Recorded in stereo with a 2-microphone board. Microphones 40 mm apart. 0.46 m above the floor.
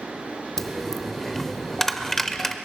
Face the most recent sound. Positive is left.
turn(degrees=10)  # may be behind; listen again after turning